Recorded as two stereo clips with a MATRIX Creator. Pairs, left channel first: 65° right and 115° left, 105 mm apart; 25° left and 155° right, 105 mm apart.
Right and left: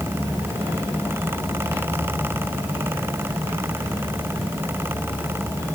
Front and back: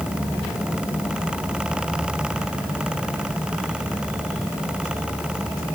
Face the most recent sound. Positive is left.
No sound to turn to.